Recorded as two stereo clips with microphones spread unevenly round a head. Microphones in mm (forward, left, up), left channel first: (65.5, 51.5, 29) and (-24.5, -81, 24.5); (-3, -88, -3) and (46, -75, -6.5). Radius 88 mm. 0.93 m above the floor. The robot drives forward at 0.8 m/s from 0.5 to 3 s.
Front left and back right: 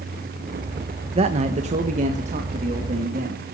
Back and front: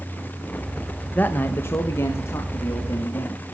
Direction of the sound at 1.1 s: 130° right.